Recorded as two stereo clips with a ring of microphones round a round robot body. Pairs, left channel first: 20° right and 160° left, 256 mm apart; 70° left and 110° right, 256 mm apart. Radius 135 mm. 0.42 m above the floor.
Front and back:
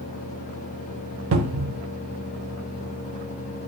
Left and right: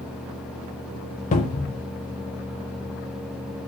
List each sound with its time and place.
1.3 s a cupboard door: 130° left, 0.6 m